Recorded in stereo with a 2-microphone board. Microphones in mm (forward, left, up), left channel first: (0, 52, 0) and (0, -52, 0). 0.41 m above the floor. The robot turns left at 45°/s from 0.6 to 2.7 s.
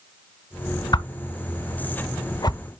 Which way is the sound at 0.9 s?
40° left (ahead or behind).